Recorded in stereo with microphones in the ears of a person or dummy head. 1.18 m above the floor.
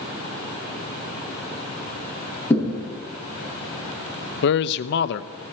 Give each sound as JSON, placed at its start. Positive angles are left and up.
{"t": 2.5, "sound": "a thud", "side_deg": 15, "distance_m": 6.5}
{"t": 4.4, "sound": "a man speaking", "side_deg": 60, "distance_m": 0.6}